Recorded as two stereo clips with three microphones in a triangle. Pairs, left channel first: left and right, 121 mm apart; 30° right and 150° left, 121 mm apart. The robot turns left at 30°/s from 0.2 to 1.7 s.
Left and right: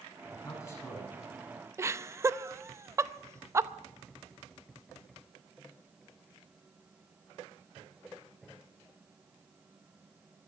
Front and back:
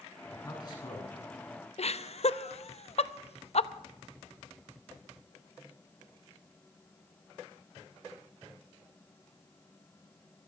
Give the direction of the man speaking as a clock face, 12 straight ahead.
11 o'clock.